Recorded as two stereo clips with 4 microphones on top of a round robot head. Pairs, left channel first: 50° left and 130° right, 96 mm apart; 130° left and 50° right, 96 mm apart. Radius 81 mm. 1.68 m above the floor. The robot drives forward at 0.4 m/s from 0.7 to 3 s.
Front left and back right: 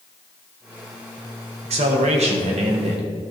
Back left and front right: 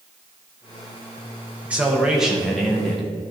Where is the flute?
I don't hear a flute.